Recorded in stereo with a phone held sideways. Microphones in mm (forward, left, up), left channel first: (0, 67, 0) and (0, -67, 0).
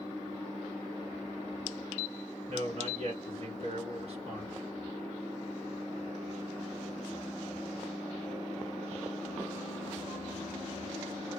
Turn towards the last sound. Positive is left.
turn(degrees=-50)  # may be behind; listen again after turning